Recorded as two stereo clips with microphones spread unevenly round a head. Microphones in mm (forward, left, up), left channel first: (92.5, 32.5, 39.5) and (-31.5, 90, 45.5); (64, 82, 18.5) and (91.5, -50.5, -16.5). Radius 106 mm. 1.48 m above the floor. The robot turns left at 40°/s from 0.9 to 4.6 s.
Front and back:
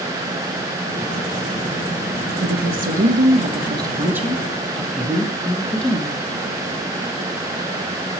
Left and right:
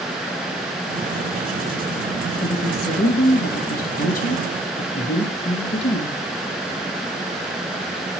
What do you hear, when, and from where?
2.4 s a woman speaking: 150° left, 1.6 m; by 6.2 s 60° left, 1.6 m